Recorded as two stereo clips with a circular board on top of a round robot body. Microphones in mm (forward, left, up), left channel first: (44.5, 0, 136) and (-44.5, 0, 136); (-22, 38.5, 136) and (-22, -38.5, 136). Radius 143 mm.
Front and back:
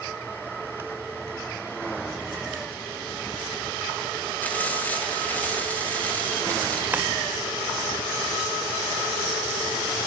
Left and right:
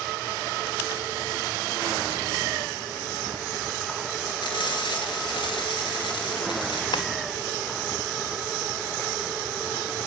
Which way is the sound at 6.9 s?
110° left.